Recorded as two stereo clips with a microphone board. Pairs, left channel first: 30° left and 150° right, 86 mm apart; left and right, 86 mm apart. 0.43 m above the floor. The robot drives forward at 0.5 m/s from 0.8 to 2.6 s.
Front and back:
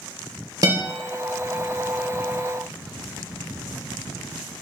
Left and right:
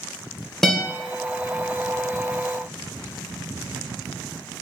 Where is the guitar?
175° left, 0.9 m.